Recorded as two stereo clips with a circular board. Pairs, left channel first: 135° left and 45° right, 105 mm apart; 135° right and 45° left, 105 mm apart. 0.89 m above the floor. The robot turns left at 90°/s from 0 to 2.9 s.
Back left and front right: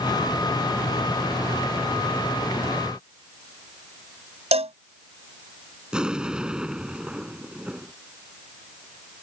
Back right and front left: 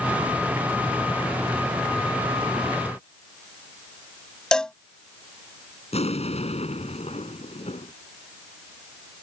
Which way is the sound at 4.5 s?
50° right.